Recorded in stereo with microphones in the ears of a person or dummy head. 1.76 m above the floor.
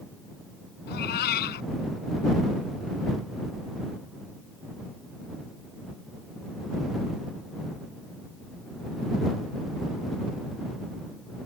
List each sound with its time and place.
0.9 s a cat meowing: 70° left (ahead or behind)